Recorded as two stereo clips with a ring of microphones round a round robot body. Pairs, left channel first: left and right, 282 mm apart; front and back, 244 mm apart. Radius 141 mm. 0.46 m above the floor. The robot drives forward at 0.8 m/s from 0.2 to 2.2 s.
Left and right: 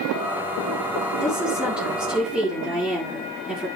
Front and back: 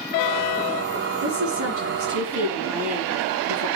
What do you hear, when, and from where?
1.2 s a woman speaking: 175° right, 6.5 m; by 3.7 s straight behind, 7.5 m